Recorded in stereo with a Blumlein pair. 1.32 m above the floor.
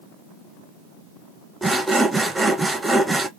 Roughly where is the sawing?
Ahead.